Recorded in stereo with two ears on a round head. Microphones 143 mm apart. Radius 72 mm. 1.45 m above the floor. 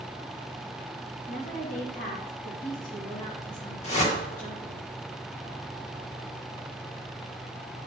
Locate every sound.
1.3 s a woman speaking: 55° left (ahead or behind), 2.5 m
3.8 s a whoosh: 45° left (ahead or behind), 1.8 m